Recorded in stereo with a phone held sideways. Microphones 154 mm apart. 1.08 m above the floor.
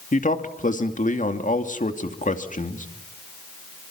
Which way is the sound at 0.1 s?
55° left (ahead or behind).